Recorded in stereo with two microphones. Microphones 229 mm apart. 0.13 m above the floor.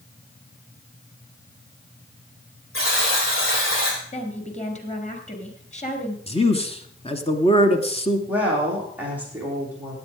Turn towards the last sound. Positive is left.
turn(degrees=-10)  # may be behind; listen again after turning